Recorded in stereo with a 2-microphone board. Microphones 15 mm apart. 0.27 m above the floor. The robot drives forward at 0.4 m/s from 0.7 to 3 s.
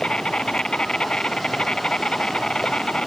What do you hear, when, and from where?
0.0 s an insect: 70° left (ahead or behind); by 3.1 s 60° left (ahead or behind)